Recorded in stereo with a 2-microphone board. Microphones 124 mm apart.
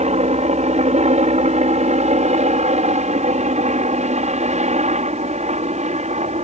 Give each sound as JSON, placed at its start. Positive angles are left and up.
{"t": 0.0, "sound": "a helicopter", "side_deg": -65}